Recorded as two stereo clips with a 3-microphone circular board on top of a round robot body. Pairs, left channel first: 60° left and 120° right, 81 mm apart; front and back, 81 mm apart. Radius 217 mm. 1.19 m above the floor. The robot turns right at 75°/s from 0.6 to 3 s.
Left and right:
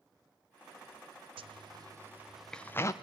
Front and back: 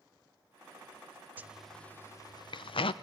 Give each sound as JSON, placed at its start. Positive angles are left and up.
{"t": 1.4, "sound": "a zipper", "azimuth_deg": -110, "distance_m": 0.5}